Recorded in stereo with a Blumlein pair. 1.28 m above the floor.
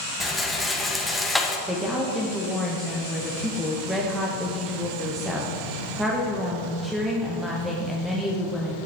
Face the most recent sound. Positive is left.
turn(degrees=-5)